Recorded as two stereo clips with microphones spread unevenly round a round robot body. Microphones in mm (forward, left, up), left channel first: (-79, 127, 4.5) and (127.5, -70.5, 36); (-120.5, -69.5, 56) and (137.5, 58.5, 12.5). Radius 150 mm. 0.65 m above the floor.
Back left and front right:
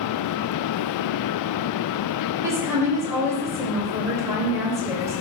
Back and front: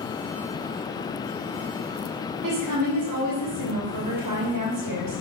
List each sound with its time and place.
2.4 s a woman speaking: 40° left, 3 m